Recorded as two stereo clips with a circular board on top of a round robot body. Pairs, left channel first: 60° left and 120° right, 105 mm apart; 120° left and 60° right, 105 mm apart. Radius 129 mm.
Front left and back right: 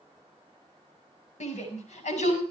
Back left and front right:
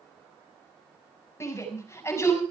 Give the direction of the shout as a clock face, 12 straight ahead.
10 o'clock.